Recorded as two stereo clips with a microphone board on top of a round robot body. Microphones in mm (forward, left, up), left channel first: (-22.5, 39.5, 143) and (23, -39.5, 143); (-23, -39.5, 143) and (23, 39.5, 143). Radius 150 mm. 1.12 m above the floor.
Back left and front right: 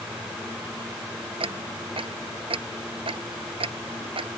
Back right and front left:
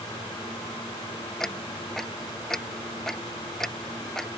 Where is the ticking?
35° right.